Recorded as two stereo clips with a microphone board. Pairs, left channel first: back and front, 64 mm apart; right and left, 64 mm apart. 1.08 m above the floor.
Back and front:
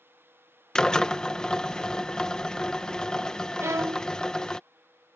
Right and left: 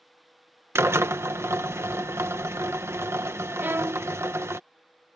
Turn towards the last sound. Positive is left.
turn(degrees=40)